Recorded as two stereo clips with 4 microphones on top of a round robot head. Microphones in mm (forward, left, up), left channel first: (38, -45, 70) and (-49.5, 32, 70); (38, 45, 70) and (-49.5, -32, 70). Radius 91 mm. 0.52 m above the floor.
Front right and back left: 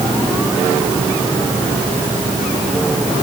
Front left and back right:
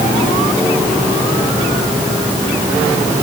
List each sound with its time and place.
Only background noise.